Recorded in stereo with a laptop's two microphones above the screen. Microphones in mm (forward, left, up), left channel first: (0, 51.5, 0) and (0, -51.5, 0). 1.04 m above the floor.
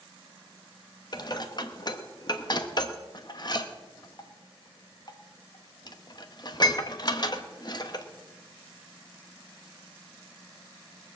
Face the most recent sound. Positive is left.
turn(degrees=45)  # may be behind; listen again after turning